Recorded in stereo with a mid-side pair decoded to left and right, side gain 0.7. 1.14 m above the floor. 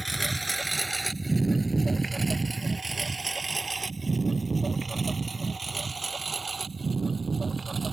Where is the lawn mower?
5° right; by 7.9 s 20° right.